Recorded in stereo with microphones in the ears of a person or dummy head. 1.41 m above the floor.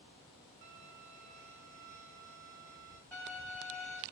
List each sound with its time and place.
0.6 s a violin: 45° right (ahead or behind), 0.7 m
3.1 s a violin: 5° left (ahead or behind), 1.1 m